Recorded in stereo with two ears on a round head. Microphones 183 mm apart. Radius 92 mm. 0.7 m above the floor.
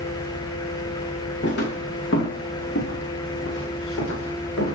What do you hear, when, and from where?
1.4 s footsteps: 60° left (ahead or behind), 3.5 m; by 4.8 s 65° left (ahead or behind), 6.5 m